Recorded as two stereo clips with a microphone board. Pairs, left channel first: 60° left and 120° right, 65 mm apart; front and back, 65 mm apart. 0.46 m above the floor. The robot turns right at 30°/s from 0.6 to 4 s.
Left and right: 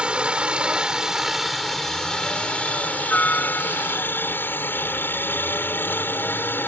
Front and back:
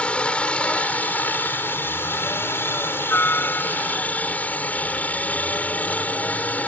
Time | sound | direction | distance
0.0 | a helicopter | 60° right | ?